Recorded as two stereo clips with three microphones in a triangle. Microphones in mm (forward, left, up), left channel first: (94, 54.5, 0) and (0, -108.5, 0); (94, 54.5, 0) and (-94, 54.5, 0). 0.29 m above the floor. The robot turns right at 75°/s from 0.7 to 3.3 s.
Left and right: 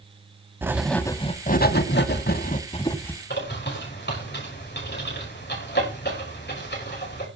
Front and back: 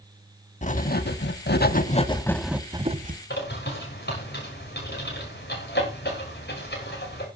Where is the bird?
30° left, 6 m.